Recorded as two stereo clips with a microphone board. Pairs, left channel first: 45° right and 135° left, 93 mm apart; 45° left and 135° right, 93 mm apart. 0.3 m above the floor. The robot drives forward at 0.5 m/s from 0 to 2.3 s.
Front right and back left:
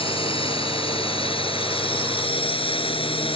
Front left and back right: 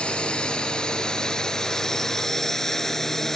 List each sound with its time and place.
0.0 s a drone: 35° right; by 3.4 s 40° right